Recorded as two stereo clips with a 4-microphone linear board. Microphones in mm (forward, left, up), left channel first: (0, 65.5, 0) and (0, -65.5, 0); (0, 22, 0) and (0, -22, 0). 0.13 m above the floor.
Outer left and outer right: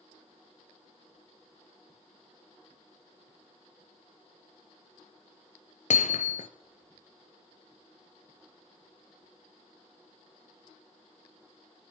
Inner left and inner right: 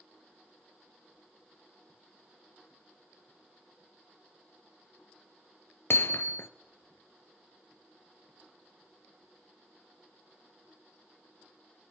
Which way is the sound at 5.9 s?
65° left (ahead or behind).